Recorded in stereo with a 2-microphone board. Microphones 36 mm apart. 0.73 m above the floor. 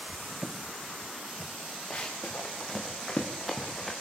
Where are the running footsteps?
30° left (ahead or behind), 5 m; by 3.9 s centre (ahead or behind), 4.5 m.